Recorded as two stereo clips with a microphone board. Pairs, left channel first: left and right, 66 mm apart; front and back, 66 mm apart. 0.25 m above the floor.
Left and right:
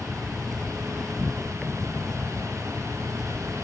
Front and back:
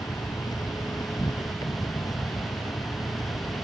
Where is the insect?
5° left.